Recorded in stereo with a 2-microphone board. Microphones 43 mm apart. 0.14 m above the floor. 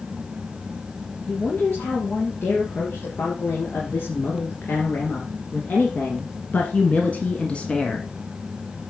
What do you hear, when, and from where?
1.3 s a woman speaking: 65° left (ahead or behind), 4 m; by 8.1 s 20° left (ahead or behind), 1.5 m